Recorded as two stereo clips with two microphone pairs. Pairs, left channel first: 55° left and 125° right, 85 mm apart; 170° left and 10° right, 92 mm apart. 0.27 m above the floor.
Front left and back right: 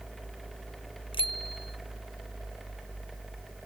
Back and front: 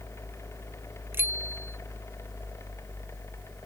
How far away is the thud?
I don't hear a thud.